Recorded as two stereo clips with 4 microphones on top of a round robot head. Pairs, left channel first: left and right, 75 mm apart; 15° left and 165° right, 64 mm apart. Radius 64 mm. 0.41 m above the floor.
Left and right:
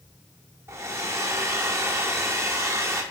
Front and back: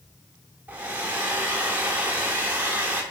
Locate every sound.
0.7 s a hair dryer: 115° right, 1.2 m